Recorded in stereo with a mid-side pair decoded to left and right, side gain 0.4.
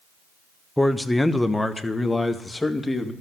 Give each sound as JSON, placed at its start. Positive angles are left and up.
{"t": 0.8, "sound": "a man speaking", "azimuth_deg": 10, "distance_m": 1.0}